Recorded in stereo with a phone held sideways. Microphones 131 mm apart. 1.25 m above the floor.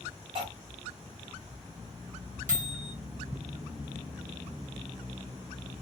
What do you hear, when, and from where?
0.3 s cutlery clinking: 40° right (ahead or behind), 1.5 m
2.5 s a microwave: 85° right, 1.1 m